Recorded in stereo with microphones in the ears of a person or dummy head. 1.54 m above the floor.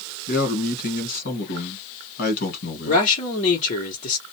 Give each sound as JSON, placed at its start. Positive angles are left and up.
{"t": 0.3, "sound": "a man speaking", "side_deg": 50, "distance_m": 1.5}
{"t": 2.9, "sound": "a man speaking", "side_deg": 40, "distance_m": 1.0}